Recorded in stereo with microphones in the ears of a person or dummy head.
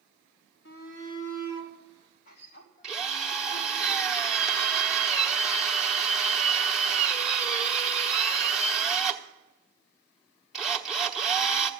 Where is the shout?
65° left (ahead or behind), 3 m; by 3.8 s 40° left (ahead or behind), 3.5 m.